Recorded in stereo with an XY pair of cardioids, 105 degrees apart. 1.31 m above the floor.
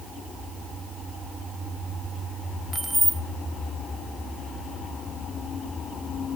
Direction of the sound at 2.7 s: 15° right.